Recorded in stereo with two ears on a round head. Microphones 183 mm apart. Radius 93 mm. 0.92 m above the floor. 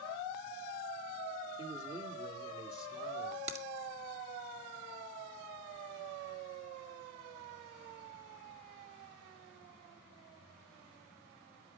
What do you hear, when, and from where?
1.6 s a man speaking: 25° right (ahead or behind), 1.8 m
3.5 s a crack: 35° right (ahead or behind), 2 m